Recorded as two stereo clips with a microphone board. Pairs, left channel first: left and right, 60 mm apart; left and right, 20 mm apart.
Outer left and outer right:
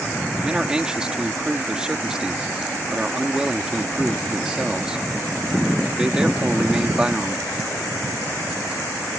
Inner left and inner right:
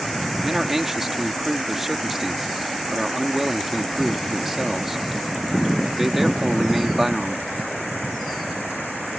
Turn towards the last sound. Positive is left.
turn(degrees=-15)  # may be behind; listen again after turning